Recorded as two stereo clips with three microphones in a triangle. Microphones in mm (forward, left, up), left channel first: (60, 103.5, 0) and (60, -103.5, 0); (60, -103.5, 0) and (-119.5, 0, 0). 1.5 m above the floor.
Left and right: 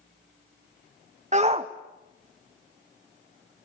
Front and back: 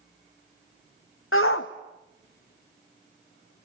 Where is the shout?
35° right, 0.7 m; by 3.6 s 20° right, 3 m.